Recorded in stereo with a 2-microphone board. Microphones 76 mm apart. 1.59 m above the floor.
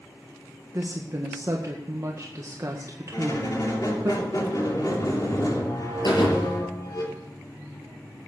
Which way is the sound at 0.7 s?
45° right (ahead or behind).